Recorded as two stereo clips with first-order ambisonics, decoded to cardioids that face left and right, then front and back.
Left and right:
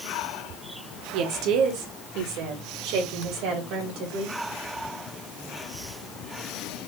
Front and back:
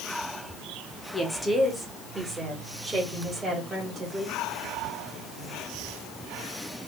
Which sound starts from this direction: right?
A woman speaking, at 1.1 s.